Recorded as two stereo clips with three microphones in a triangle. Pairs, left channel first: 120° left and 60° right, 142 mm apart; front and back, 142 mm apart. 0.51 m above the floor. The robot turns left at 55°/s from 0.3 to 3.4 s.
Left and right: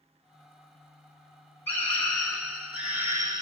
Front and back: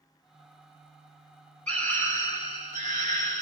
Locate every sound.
1.7 s a scream: 65° left, 1.3 m; by 3.4 s 30° right, 1.3 m